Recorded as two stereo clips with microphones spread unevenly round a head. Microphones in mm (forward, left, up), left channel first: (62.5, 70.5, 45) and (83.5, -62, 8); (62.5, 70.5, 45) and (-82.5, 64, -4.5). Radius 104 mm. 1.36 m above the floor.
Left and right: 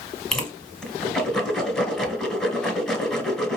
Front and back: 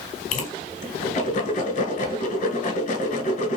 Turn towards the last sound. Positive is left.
turn(degrees=15)